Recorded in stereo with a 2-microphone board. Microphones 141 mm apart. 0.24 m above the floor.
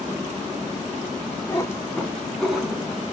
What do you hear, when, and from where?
1.5 s a cat meowing: 25° left (ahead or behind), 0.9 m; by 3.1 s 10° right (ahead or behind), 1.3 m